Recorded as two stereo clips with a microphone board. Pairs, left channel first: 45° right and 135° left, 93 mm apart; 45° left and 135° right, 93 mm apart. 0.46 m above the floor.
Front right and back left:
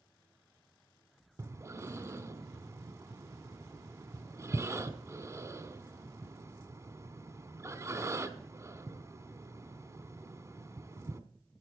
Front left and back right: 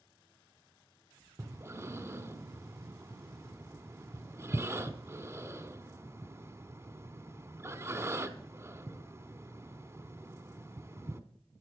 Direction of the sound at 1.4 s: 175° left.